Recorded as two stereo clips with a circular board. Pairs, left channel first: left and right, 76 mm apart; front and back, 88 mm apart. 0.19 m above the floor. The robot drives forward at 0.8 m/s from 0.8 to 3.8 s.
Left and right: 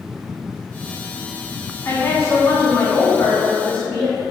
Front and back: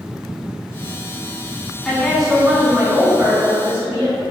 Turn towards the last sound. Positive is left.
turn(degrees=150)